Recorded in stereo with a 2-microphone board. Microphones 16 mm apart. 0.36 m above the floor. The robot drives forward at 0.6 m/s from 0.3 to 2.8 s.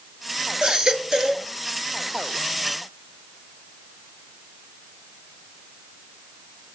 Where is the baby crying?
55° right (ahead or behind), 2 m; by 1.5 s 45° right (ahead or behind), 2.5 m.